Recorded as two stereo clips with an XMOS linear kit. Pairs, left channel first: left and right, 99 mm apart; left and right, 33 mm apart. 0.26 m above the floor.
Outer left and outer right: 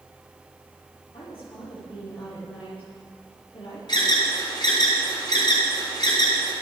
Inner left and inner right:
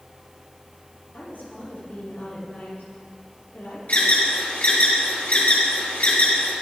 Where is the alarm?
50° left (ahead or behind), 5 m.